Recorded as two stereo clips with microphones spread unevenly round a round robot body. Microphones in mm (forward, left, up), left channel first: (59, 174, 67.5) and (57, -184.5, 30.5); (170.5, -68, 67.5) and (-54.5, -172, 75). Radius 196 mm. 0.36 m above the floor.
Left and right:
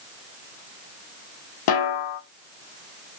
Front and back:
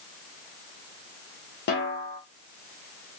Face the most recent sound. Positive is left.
turn(degrees=65)